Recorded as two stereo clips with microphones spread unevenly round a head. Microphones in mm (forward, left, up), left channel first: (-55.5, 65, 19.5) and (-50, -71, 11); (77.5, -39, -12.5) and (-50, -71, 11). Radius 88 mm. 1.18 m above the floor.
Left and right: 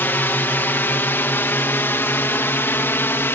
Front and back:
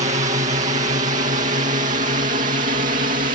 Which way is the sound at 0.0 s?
165° left.